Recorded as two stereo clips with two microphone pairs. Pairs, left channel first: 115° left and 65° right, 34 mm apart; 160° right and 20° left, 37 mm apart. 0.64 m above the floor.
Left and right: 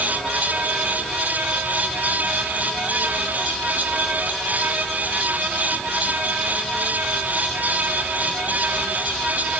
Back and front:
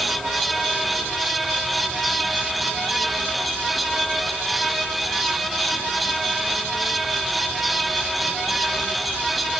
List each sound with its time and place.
Only background noise.